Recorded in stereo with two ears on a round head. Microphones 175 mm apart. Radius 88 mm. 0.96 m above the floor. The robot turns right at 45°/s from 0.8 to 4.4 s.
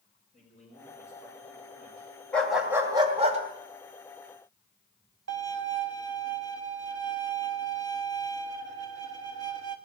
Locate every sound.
0.3 s a man speaking: 140° left, 4.5 m; by 2.1 s 160° right, 4.5 m
2.3 s a dog barking: 175° left, 2 m; by 3.4 s 140° right, 2 m
5.3 s a violin: 65° right (ahead or behind), 1.4 m